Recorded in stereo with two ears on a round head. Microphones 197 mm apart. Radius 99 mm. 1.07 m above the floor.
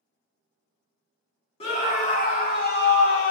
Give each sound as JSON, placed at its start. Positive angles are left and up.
{"t": 1.6, "sound": "a scream", "side_deg": 30, "distance_m": 1.9}